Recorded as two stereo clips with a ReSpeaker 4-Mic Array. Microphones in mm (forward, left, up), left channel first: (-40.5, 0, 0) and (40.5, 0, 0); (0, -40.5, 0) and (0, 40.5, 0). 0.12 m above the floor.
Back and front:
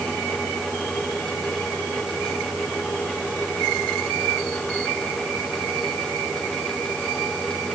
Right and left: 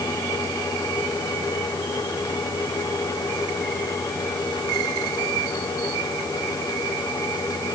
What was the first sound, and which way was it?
Only background noise.